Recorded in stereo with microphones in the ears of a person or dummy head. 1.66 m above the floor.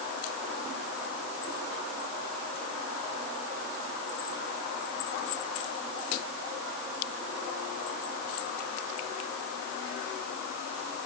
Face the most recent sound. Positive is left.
No sound to turn to.